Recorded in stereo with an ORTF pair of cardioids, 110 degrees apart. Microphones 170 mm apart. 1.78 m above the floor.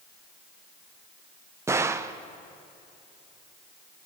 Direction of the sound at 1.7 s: 15° right.